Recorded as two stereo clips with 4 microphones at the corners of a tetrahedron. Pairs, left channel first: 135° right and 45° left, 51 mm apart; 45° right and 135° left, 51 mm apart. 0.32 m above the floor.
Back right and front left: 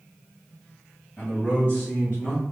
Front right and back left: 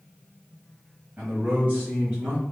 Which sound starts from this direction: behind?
A man speaking, at 1.2 s.